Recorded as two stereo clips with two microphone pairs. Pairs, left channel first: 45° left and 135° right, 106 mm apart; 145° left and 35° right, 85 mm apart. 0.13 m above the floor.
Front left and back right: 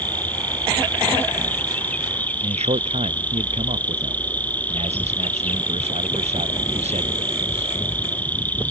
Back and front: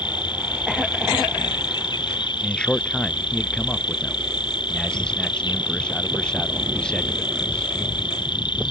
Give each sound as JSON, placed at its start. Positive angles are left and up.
{"t": 0.0, "sound": "an insect", "azimuth_deg": 120}
{"t": 2.4, "sound": "a man speaking", "azimuth_deg": -135}